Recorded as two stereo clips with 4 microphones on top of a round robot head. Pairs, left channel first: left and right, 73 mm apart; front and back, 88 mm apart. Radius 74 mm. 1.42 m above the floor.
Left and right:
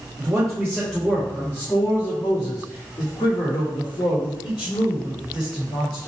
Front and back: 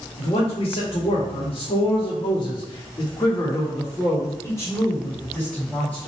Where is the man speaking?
20° right, 1.5 m; by 6.1 s 85° left, 2.5 m.